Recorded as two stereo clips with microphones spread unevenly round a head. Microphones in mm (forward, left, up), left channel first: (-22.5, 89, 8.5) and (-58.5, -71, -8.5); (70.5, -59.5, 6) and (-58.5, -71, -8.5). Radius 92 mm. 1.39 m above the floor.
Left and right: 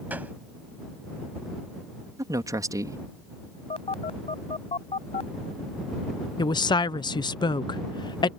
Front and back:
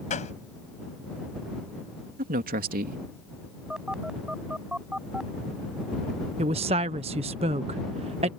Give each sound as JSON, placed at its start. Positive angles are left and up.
{"t": 0.1, "sound": "a gunshot", "azimuth_deg": -20}
{"t": 2.2, "sound": "a man speaking", "azimuth_deg": -175}
{"t": 3.7, "sound": "a phone buzzing", "azimuth_deg": 95}
{"t": 6.4, "sound": "a woman speaking", "azimuth_deg": 140}